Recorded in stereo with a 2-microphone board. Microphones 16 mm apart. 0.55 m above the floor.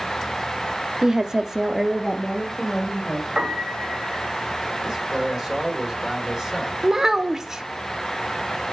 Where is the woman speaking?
35° right (ahead or behind), 0.9 m; by 3.3 s 10° left (ahead or behind), 2.5 m.